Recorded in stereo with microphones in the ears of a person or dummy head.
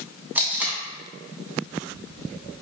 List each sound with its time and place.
0.3 s tape being pulled: 10° right (ahead or behind), 0.7 m